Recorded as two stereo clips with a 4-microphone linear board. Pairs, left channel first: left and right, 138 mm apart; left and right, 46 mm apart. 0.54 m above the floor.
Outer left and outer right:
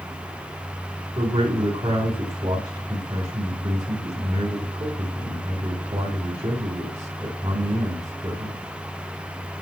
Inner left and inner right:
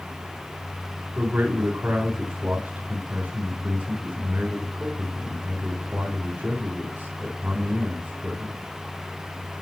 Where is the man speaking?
45° right (ahead or behind), 3.5 m.